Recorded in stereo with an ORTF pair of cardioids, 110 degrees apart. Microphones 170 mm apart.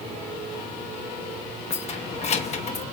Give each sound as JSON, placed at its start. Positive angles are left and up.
{"t": 1.7, "sound": "keys jangling", "azimuth_deg": 40, "distance_m": 1.0}